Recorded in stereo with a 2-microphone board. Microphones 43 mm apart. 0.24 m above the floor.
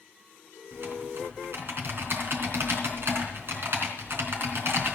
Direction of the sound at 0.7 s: 65° right (ahead or behind).